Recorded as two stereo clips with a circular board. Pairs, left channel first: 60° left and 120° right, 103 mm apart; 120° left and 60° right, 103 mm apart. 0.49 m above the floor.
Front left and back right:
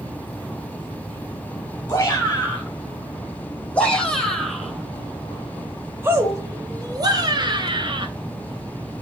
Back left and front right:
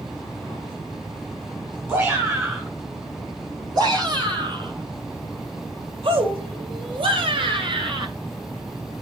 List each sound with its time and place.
1.9 s a shout: straight ahead, 3.5 m; by 8.1 s 90° right, 3 m